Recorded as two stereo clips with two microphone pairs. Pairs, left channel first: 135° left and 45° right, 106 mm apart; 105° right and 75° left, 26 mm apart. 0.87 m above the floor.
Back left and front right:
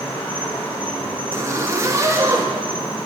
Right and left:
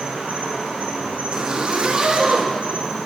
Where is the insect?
65° left, 2.5 m.